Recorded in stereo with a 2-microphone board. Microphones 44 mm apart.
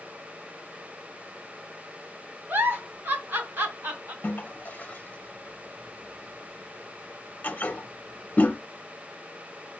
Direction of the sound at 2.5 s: 55° right (ahead or behind).